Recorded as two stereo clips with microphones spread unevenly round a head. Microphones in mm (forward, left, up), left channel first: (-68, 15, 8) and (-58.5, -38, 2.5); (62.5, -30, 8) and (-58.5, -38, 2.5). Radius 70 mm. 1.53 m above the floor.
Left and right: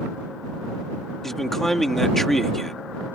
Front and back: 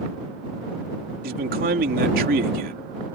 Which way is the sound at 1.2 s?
175° right.